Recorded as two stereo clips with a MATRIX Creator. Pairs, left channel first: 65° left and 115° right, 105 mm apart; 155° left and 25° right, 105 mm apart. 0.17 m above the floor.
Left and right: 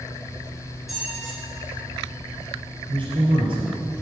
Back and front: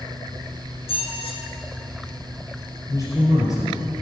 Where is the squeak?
160° left, 2.0 m.